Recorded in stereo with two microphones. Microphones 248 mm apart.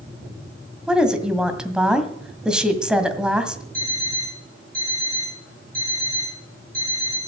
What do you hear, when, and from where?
0.9 s a woman speaking: 5° right (ahead or behind), 1.8 m
3.7 s an alarm clock: 35° right (ahead or behind), 9 m